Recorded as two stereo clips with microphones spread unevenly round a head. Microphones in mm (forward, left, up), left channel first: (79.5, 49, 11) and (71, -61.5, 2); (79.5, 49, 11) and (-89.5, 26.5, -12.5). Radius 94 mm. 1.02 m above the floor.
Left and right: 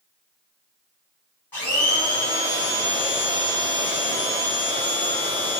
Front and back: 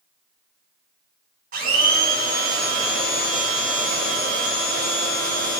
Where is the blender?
160° left, 1.3 m.